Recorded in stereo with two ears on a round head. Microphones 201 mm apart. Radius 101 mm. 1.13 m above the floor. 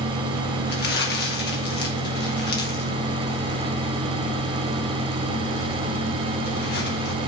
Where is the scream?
I don't hear a scream.